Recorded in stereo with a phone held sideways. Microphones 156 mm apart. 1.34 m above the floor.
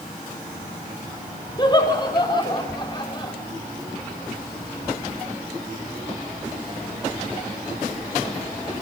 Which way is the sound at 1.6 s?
30° left (ahead or behind).